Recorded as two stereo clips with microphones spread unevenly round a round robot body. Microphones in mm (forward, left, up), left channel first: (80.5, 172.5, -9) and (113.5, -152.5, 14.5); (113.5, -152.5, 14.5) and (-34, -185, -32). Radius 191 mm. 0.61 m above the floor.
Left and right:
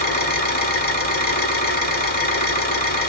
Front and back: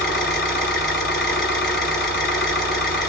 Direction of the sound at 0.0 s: 35° left.